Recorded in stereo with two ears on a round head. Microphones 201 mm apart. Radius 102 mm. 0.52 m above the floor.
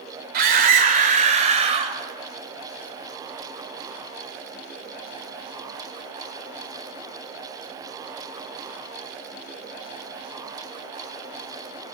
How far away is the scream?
About 2 m.